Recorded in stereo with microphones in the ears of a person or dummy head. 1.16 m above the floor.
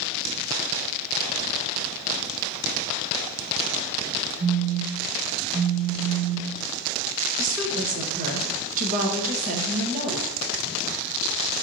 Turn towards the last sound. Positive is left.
turn(degrees=-45)  # may be behind; listen again after turning